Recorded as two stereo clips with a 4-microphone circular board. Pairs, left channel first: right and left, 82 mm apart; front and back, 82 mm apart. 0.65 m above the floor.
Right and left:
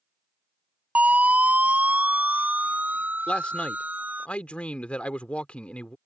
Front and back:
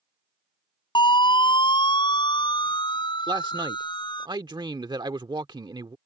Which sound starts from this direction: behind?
A man speaking, at 3.3 s.